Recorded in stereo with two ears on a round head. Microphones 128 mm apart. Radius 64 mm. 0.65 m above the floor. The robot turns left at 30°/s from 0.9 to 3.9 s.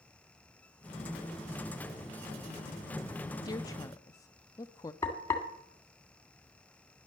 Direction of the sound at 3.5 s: 25° left (ahead or behind).